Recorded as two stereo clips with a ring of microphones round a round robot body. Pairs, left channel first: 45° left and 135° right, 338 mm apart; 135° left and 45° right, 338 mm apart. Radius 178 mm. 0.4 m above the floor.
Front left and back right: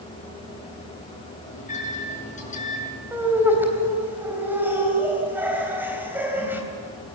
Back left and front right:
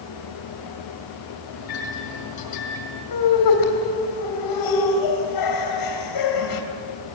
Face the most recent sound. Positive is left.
turn(degrees=140)